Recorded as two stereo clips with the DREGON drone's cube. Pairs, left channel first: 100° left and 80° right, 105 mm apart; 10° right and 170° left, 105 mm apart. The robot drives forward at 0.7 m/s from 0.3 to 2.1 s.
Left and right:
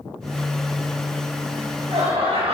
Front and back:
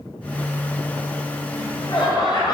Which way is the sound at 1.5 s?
55° right.